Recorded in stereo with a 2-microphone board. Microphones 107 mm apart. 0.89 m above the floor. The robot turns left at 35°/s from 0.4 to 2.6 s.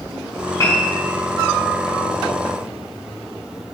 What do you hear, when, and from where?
0.6 s a piano: 25° left (ahead or behind), 5.5 m; by 1.0 s 15° left (ahead or behind), 5.5 m